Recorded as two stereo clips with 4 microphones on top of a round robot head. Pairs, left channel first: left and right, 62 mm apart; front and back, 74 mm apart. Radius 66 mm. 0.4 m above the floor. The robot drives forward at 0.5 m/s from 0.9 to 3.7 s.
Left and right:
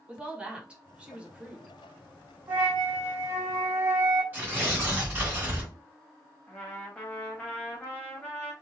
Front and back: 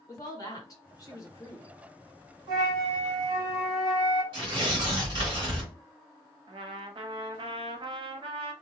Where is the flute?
155° right, 2 m; by 4.2 s 160° right, 2.5 m.